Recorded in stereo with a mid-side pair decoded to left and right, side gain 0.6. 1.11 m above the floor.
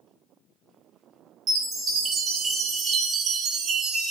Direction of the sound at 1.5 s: 50° right.